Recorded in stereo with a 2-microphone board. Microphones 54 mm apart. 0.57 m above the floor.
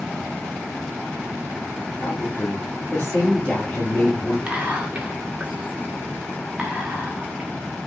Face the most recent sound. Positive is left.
turn(degrees=-25)  # may be behind; listen again after turning